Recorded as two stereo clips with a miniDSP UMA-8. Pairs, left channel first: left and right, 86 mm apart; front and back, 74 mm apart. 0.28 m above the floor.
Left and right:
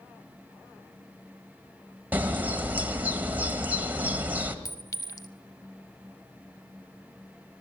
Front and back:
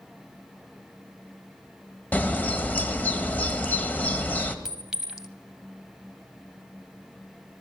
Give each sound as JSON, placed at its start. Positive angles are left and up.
{"t": 2.1, "sound": "a bird", "azimuth_deg": -45, "distance_m": 1.2}
{"t": 4.7, "sound": "a clink", "azimuth_deg": 100, "distance_m": 0.7}